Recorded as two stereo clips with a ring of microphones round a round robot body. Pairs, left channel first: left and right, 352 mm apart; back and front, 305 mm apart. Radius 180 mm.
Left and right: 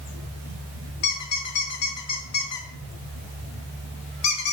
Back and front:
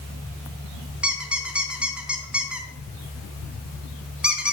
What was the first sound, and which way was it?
A squeak, 85° left.